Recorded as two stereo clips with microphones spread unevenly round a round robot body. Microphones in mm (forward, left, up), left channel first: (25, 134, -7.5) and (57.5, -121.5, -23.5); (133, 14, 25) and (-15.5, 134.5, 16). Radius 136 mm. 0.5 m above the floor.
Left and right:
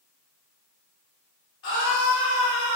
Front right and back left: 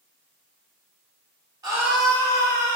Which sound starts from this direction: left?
A scream, at 1.6 s.